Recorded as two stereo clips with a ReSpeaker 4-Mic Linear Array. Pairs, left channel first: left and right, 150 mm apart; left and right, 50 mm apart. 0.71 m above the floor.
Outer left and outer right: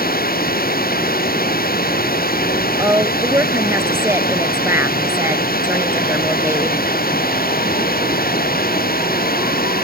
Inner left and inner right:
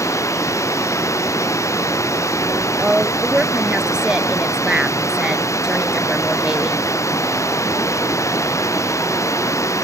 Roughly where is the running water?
Left.